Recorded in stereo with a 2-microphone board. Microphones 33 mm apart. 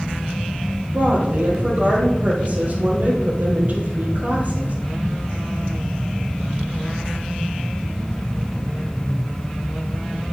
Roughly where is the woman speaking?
Right.